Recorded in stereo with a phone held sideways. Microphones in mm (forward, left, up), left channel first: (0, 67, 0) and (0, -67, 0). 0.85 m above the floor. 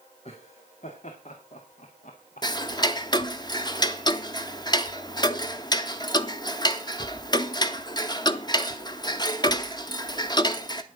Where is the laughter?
50° left (ahead or behind), 2 m; by 3.3 s 60° left (ahead or behind), 1.2 m.